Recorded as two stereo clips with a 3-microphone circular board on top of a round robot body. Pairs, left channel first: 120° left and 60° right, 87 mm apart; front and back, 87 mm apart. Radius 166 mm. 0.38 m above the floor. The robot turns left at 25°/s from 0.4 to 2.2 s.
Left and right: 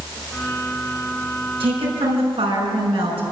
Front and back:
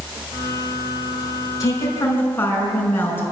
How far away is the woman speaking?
About 6 m.